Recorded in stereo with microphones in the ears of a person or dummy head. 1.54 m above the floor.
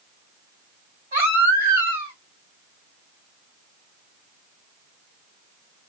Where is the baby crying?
35° right (ahead or behind), 3.5 m.